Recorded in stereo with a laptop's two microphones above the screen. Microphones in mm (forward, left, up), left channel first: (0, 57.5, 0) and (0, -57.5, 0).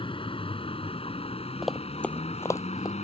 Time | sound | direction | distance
0.0 | a vehicle | 50° left (ahead or behind) | ?
1.6 | running footsteps | centre (ahead or behind) | ?